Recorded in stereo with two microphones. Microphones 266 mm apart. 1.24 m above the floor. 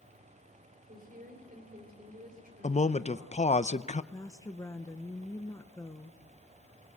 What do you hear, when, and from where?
0.9 s a woman speaking: 35° right (ahead or behind), 4.5 m
2.6 s a man speaking: 30° left (ahead or behind), 0.6 m
4.1 s a woman speaking: 15° left (ahead or behind), 0.8 m